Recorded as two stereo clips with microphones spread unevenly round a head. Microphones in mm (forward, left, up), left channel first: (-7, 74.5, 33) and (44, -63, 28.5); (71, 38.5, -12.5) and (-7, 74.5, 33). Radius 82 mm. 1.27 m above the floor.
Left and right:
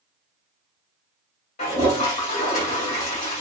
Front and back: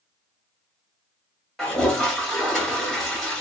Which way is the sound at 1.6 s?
75° left.